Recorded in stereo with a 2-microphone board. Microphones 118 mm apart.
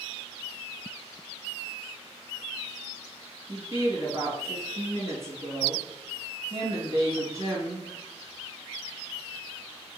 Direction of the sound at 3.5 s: 25° right (ahead or behind).